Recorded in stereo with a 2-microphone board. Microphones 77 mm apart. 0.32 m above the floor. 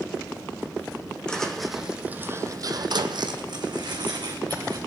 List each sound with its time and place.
1.3 s footsteps: 10° left (ahead or behind), 1.2 m; by 4.8 s 65° right (ahead or behind), 2 m